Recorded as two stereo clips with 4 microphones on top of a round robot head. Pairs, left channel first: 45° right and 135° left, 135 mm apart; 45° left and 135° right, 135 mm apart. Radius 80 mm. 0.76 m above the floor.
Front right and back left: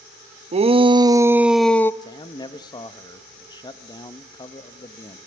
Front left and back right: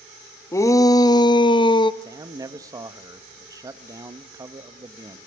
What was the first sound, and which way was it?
A shout, 110° left.